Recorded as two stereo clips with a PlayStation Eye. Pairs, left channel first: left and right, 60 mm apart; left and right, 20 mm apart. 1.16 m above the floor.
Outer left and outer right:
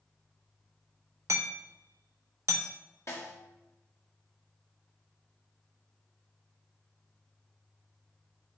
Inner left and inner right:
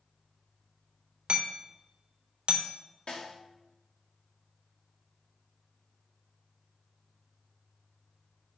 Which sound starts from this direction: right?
Hammering, at 1.3 s.